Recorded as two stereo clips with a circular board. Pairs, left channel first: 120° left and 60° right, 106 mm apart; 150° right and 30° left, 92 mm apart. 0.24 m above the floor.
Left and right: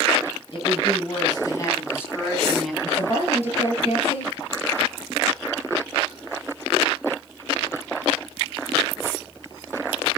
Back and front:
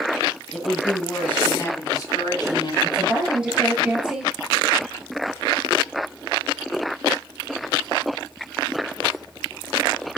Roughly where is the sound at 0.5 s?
Behind left.